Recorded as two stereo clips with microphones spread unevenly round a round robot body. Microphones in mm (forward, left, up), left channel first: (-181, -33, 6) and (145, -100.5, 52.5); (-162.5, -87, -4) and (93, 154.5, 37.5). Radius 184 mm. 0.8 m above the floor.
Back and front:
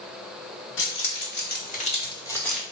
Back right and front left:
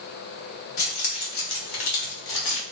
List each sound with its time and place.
0.8 s keys jangling: 145° right, 1.6 m; by 2.6 s 105° right, 1.1 m